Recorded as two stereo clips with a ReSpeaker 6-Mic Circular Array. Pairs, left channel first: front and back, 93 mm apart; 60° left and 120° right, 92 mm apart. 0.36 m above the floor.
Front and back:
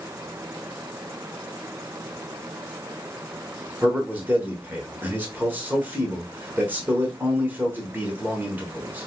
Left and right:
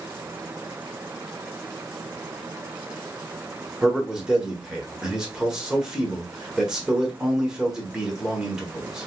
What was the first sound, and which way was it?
A man speaking, 175° left.